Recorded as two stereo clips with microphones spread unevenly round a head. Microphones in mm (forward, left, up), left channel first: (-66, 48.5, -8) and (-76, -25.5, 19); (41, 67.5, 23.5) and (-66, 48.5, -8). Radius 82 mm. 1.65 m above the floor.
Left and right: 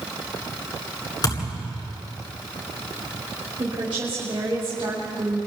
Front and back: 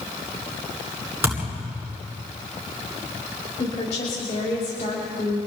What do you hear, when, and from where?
1.2 s a thud: 115° left, 9.5 m
3.6 s a woman speaking: 45° right, 5.5 m